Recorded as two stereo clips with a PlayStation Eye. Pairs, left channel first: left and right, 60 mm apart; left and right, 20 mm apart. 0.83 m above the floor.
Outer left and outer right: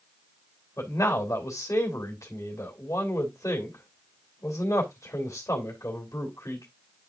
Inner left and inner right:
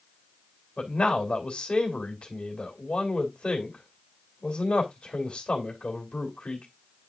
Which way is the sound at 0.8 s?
55° left (ahead or behind).